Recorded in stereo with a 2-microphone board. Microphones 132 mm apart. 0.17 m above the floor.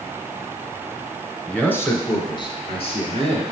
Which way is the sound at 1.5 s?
5° left (ahead or behind).